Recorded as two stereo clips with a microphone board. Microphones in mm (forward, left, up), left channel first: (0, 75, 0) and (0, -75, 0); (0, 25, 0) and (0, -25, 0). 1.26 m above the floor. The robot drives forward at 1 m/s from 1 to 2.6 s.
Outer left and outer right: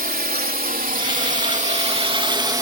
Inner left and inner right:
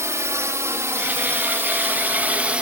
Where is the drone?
75° right (ahead or behind); by 2.6 s 20° right (ahead or behind).